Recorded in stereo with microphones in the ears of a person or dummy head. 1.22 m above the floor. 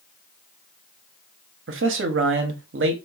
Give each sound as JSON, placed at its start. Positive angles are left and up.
{"t": 1.7, "sound": "a man speaking", "side_deg": -55, "distance_m": 0.6}